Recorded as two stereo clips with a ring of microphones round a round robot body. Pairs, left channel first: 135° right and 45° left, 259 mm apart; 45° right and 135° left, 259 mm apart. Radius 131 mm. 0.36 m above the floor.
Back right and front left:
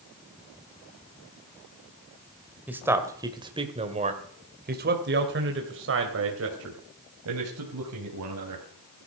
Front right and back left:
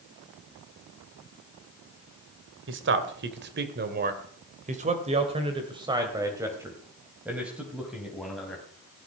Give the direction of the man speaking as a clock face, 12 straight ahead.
8 o'clock.